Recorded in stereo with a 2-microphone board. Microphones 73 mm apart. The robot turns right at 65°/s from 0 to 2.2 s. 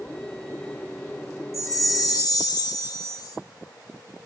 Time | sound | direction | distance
1.5 | a chime | 55° left | 0.5 m